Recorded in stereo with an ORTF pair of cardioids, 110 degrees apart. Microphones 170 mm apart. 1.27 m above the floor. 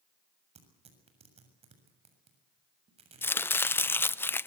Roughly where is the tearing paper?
Ahead right.